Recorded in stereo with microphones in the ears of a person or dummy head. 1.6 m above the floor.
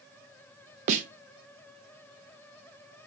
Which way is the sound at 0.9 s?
45° right (ahead or behind).